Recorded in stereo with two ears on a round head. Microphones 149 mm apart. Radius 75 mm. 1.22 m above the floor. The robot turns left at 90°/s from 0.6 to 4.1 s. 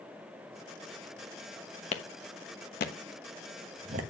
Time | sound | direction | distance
1.9 | a clap | 40° left (ahead or behind) | 1.0 m